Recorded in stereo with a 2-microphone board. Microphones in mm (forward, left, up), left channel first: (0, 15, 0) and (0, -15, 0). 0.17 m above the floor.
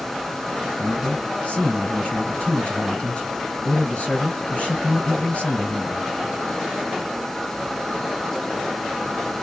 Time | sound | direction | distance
0.8 | a man speaking | 45° left (ahead or behind) | 2 m